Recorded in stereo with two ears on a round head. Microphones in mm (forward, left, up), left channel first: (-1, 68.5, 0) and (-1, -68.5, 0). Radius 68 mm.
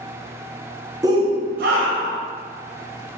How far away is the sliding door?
No sliding door in this recording.